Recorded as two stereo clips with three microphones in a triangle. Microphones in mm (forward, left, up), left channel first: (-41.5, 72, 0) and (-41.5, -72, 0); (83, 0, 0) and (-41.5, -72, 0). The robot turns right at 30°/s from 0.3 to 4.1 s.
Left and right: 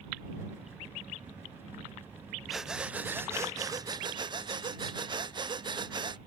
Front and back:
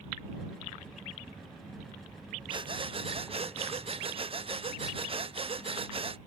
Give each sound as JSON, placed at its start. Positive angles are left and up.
{"t": 2.5, "sound": "breathing", "azimuth_deg": 180}